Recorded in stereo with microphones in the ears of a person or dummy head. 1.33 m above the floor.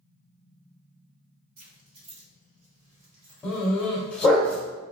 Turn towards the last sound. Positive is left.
turn(degrees=5)  # may be behind; listen again after turning